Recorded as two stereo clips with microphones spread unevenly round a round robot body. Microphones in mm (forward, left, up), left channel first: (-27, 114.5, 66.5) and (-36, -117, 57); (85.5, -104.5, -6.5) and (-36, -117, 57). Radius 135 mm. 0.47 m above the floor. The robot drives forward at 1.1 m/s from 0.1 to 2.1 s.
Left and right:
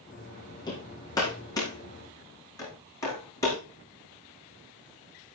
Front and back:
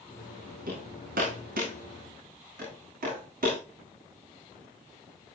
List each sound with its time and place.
0.7 s hammering: 160° left, 8 m; by 3.6 s 165° left, 9.5 m